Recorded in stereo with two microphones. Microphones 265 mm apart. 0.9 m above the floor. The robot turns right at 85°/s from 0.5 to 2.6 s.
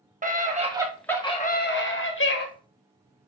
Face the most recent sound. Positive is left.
turn(degrees=140)